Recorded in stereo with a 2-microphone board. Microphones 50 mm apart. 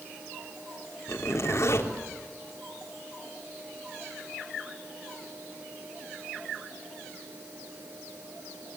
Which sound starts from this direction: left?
A zipper, at 1.1 s.